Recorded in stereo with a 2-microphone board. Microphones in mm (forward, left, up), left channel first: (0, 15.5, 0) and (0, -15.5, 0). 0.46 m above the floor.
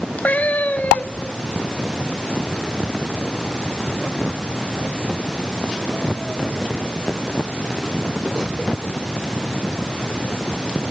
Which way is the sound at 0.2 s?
60° left (ahead or behind).